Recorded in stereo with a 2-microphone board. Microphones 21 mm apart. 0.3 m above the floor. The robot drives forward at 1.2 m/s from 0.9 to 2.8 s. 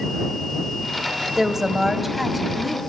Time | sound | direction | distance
1.4 | a woman speaking | 15° right (ahead or behind) | 1.4 m